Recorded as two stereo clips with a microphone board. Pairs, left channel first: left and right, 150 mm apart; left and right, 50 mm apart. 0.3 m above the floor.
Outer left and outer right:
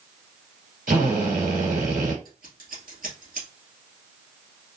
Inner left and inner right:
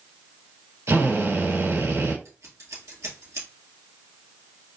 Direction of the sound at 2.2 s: 80° right.